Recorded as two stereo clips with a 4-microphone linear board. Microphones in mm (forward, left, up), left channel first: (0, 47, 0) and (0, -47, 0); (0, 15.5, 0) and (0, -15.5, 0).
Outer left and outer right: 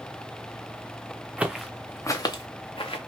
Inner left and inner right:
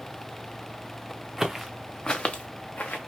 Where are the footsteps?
15° right (ahead or behind), 0.6 m; by 3.0 s 65° left (ahead or behind), 1.0 m.